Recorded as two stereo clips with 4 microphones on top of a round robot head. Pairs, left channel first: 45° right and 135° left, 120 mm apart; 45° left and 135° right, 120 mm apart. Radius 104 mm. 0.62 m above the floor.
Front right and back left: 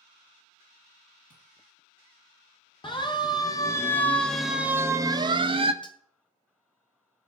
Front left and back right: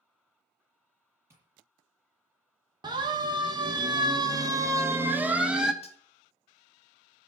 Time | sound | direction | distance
1.3 | tapping | 65° right | 7.5 m
2.8 | a siren | 85° right | 2.5 m
5.8 | cutlery clinking | 5° left | 1.3 m